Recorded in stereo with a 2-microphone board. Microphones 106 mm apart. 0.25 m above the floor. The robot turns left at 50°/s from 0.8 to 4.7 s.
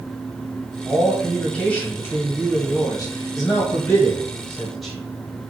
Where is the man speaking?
165° right, 1.1 m; by 5.0 s 5° left, 1.1 m.